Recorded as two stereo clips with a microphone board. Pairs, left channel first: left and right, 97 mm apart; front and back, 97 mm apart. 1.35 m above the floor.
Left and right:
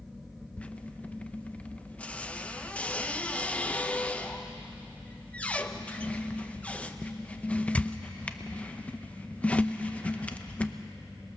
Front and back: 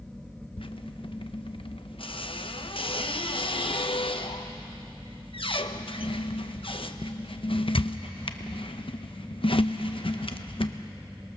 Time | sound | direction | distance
0.6 | a squeak | 15° left | 0.8 m